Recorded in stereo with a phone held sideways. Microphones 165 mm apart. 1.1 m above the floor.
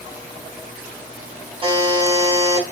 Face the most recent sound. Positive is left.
turn(degrees=-35)  # may be behind; listen again after turning